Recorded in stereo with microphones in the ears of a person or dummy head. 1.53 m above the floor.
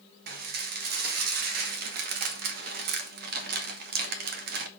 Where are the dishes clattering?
60° right (ahead or behind), 0.9 m.